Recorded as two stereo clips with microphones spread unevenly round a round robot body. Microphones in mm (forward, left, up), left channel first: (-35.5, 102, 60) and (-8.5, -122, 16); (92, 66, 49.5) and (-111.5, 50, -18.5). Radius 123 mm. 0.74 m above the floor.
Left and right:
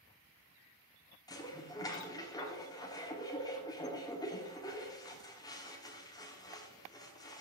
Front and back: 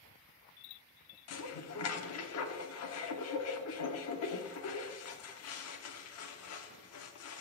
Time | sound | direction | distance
1.3 | dishes clattering | 20° left | 1.1 m